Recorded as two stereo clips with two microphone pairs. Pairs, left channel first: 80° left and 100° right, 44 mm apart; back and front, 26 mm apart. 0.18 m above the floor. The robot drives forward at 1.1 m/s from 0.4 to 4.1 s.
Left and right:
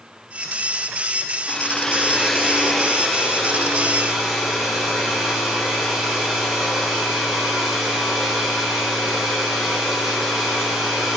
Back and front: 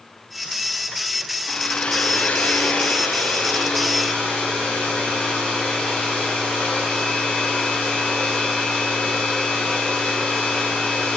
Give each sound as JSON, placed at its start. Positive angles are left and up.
{"t": 1.5, "sound": "a hair dryer", "azimuth_deg": 130, "distance_m": 0.6}